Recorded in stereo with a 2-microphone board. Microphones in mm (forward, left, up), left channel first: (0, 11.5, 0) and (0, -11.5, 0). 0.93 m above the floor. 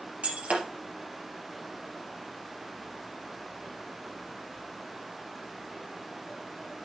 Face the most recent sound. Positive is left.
turn(degrees=-75)  # may be behind; listen again after turning